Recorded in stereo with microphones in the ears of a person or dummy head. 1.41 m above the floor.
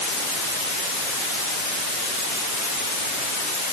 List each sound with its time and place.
Only background noise.